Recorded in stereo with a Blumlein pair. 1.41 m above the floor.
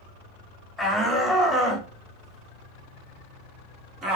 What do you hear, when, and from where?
0.8 s a shout: 5° left, 4 m; by 4.2 s 25° right, 3 m